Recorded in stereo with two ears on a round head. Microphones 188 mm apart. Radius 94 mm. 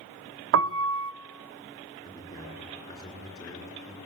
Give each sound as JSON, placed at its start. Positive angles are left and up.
{"t": 0.5, "sound": "a piano", "side_deg": -60, "distance_m": 0.6}
{"t": 2.0, "sound": "a man speaking", "side_deg": 15, "distance_m": 9.5}